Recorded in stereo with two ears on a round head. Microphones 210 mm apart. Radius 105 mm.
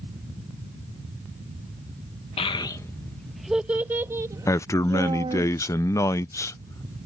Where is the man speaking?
15° left (ahead or behind).